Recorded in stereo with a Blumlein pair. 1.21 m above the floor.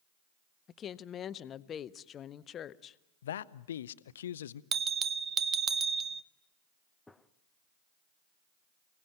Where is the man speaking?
60° left, 0.6 m.